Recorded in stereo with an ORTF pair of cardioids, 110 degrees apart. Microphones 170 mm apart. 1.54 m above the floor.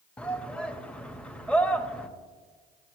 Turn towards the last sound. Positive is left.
turn(degrees=5)